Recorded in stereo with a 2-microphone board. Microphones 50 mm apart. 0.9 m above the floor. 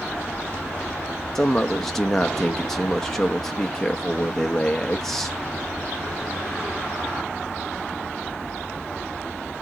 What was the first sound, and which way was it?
A man speaking, 10° left (ahead or behind).